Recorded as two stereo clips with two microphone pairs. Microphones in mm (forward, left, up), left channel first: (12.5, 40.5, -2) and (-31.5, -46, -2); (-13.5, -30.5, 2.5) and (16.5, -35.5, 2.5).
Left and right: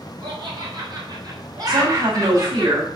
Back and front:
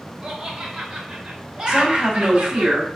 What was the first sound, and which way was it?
Laughter, 75° right.